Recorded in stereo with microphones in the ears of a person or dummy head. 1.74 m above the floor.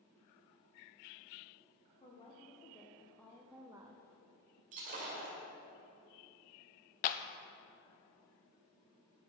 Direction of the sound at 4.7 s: 40° right (ahead or behind).